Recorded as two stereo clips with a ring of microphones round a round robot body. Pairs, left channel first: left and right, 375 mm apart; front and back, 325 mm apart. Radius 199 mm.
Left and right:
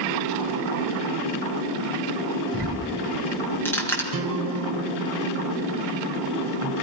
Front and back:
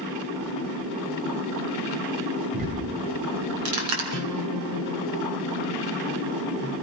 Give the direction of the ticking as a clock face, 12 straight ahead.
6 o'clock.